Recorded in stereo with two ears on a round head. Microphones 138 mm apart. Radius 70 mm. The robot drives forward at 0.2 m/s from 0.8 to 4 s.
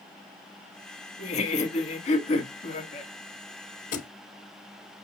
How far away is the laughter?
About 1.4 m.